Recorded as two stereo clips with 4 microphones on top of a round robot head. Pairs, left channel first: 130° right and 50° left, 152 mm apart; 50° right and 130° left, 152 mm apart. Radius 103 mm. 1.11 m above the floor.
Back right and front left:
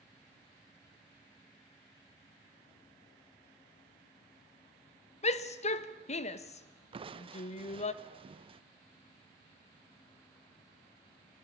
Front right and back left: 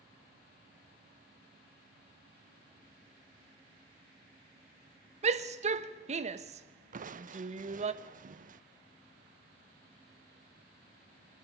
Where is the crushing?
100° left, 0.9 m.